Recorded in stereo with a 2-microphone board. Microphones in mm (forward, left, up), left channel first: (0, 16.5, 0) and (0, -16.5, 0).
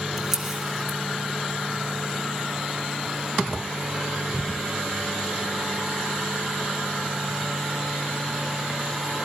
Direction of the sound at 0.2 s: 10° right (ahead or behind).